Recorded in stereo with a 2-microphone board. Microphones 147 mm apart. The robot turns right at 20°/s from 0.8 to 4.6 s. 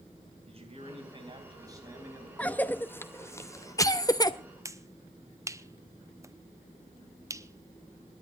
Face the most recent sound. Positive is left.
turn(degrees=-20)  # may be behind; listen again after turning